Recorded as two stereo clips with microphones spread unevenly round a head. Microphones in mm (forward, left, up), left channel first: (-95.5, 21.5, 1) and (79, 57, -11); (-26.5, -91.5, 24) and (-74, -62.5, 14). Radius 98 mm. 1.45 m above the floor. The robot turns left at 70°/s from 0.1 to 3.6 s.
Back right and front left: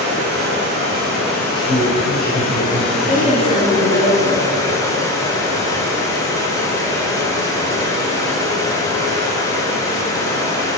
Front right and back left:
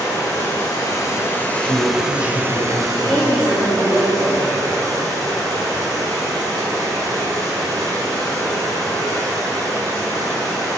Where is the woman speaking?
95° right, 3 m; by 5.0 s 140° right, 3 m.